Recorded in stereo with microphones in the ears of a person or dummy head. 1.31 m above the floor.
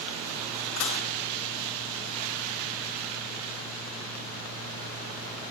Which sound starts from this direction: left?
Dishes clattering, at 0.8 s.